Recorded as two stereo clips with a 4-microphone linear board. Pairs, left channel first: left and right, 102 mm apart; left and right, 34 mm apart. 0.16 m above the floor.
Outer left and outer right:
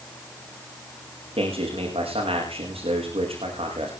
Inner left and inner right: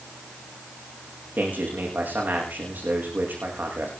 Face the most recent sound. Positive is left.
turn(degrees=-70)  # may be behind; listen again after turning